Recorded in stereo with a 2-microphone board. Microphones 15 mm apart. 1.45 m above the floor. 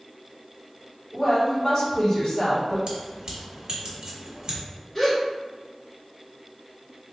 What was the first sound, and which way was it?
A woman speaking, 20° left (ahead or behind).